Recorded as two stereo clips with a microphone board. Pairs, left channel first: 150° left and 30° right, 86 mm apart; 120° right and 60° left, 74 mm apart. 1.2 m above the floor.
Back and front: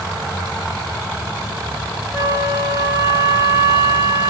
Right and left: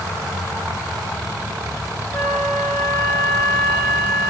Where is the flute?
95° right, 2.5 m.